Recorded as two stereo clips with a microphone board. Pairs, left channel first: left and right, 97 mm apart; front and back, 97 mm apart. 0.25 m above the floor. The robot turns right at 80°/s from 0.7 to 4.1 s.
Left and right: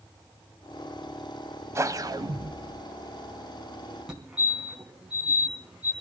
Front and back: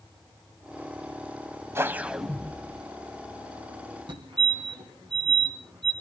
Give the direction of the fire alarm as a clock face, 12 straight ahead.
6 o'clock.